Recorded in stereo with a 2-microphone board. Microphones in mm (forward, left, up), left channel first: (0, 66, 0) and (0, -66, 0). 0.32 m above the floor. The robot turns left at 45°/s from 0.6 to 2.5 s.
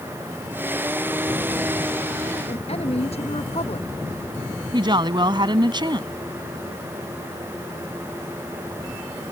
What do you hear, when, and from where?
2.5 s a woman speaking: 50° left (ahead or behind)
4.7 s a woman speaking: 35° right (ahead or behind)